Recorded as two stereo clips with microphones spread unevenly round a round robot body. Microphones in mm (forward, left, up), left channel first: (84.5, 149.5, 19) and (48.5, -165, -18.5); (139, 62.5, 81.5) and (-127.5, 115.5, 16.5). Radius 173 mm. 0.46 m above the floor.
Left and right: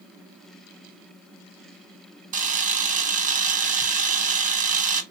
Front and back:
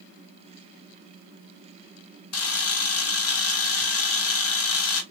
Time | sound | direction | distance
2.3 | a camera shutter | 45° right | 1.3 m